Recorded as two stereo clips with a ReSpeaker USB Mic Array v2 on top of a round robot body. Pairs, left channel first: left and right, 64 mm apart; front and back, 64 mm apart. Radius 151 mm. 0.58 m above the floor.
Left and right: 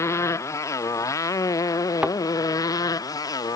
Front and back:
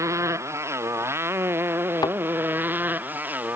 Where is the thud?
15° right.